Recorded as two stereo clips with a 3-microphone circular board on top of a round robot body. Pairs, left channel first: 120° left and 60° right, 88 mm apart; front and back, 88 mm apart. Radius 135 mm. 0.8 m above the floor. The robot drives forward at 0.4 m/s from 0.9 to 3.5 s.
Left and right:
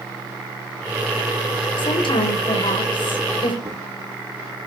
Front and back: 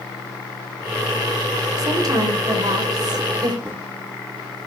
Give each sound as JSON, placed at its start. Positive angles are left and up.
{"t": 1.8, "sound": "a woman speaking", "azimuth_deg": 135, "distance_m": 4.0}
{"t": 3.6, "sound": "footsteps", "azimuth_deg": -115, "distance_m": 3.5}